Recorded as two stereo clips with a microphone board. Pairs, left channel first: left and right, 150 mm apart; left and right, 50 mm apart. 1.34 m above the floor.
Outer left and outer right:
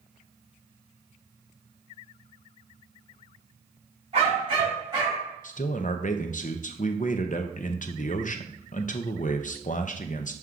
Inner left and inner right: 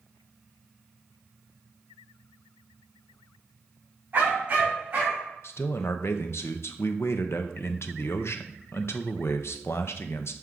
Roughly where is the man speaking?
Left.